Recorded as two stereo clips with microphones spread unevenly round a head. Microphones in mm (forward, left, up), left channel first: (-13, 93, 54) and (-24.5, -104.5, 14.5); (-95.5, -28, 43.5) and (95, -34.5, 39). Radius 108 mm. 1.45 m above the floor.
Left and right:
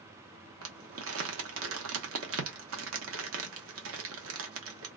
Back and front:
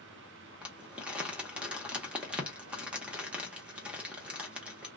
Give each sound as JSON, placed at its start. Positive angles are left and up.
{"t": 0.6, "sound": "crumpling", "azimuth_deg": -85, "distance_m": 0.8}